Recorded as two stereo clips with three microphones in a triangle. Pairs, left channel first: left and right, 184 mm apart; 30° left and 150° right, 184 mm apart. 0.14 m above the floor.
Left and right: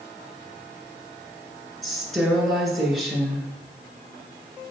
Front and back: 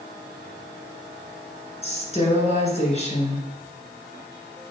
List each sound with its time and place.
1.8 s a woman speaking: straight ahead, 2 m